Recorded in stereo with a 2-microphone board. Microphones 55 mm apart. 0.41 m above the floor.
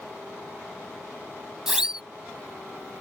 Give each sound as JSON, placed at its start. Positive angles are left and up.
{"t": 1.7, "sound": "a siren", "side_deg": -15}